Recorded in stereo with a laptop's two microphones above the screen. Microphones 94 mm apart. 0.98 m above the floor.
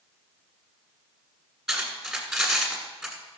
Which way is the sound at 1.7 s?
Centre (ahead or behind).